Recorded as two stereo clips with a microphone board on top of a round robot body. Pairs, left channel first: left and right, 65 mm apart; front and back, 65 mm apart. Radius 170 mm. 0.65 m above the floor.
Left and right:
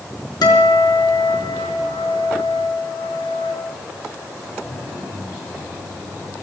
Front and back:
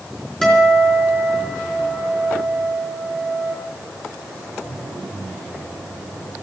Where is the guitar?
80° left, 4.5 m.